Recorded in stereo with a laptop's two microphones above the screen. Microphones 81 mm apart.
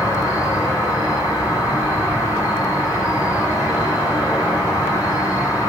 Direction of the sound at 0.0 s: 20° right (ahead or behind).